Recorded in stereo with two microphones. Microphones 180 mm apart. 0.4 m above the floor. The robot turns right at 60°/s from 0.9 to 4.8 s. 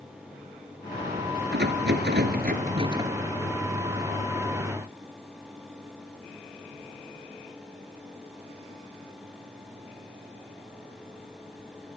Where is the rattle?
110° right, 2 m; by 3.1 s 15° right, 2 m.